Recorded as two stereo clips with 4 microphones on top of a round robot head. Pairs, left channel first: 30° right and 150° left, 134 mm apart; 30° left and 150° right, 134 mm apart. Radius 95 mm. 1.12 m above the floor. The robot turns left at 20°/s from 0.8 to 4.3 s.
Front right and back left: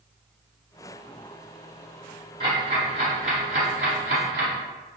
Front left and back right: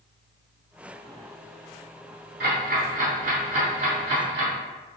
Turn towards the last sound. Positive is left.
turn(degrees=160)